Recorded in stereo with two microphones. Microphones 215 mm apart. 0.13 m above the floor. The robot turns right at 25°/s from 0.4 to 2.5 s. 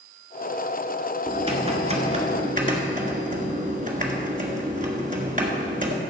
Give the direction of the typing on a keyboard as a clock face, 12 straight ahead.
5 o'clock.